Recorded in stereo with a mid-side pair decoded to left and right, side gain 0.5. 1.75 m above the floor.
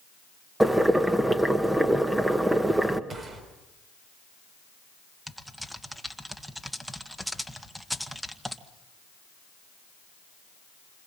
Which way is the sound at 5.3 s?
5° right.